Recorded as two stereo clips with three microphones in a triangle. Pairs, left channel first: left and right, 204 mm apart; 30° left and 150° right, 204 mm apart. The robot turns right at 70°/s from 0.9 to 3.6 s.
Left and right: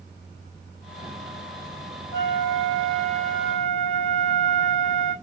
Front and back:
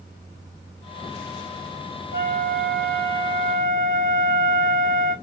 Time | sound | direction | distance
2.1 | a flute | 55° left | 5 m